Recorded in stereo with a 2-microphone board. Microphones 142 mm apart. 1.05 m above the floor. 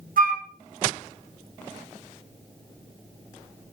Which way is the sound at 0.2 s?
75° right (ahead or behind).